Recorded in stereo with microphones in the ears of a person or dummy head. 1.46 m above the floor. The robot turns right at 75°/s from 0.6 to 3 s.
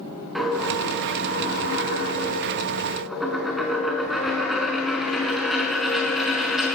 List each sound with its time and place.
0.3 s a dropped coin: straight ahead, 4.5 m; by 6.8 s straight behind, 4.5 m